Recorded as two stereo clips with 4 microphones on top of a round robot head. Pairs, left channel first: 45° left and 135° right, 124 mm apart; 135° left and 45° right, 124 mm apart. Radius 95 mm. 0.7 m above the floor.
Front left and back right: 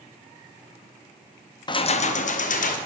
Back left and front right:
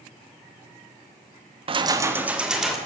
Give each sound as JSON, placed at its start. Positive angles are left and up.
{"t": 1.7, "sound": "keys jangling", "azimuth_deg": -5, "distance_m": 0.5}